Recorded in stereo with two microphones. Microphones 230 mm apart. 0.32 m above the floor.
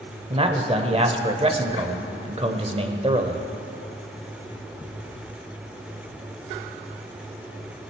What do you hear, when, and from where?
0.3 s a man speaking: 25° right (ahead or behind), 0.9 m